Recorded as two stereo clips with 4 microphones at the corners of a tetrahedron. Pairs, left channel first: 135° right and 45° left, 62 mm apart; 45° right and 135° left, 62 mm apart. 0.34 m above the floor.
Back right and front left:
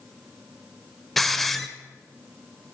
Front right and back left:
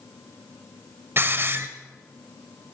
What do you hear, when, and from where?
1.2 s a hiss: 140° left, 1.1 m